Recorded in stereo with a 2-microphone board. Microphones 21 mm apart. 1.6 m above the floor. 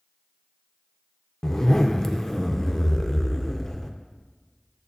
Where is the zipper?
25° left (ahead or behind), 0.5 m.